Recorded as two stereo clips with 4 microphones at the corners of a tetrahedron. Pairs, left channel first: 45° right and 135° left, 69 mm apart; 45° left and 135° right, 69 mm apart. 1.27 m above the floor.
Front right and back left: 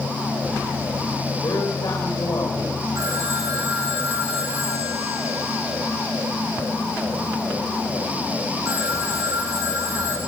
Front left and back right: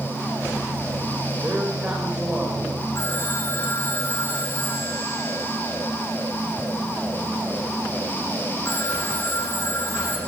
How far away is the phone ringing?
About 7 m.